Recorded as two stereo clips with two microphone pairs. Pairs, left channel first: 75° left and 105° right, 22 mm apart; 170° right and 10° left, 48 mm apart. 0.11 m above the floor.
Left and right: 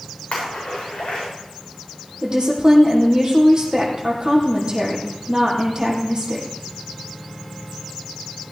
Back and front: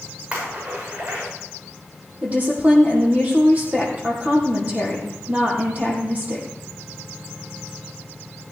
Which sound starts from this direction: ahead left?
A splash, at 0.3 s.